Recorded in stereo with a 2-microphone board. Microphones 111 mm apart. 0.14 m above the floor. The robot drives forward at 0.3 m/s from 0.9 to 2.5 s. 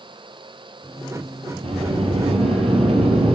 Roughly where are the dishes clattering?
I don't hear dishes clattering.